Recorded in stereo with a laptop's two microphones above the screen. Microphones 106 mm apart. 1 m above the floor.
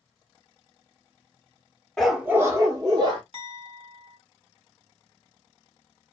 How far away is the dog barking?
About 0.6 m.